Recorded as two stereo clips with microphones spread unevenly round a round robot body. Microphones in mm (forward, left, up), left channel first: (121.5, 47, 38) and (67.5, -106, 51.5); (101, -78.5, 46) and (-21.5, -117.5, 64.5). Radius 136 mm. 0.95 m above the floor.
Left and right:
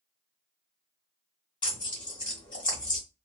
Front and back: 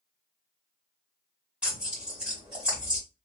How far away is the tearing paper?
About 0.7 m.